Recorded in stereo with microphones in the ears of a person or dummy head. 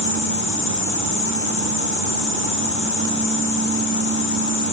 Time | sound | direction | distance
0.0 | an insect | 65° left (ahead or behind) | 0.8 m